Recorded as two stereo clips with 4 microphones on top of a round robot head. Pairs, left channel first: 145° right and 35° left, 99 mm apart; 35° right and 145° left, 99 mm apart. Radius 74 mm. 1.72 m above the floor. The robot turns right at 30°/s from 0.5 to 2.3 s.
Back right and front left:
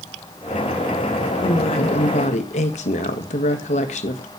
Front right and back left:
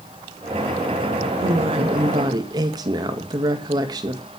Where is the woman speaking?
175° left, 1.9 m; by 4.3 s 160° right, 1.9 m.